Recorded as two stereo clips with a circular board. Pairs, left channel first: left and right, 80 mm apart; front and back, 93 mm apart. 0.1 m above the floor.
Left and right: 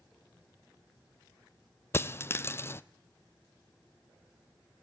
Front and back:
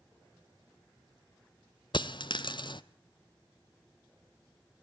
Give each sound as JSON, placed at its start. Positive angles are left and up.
{"t": 1.9, "sound": "a dropped coin", "azimuth_deg": 30, "distance_m": 0.6}